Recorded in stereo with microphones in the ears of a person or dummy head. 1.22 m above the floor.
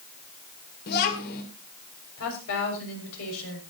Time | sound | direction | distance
0.9 | a child speaking | 55° left (ahead or behind) | 2.5 m
2.2 | a woman speaking | 75° left (ahead or behind) | 6.5 m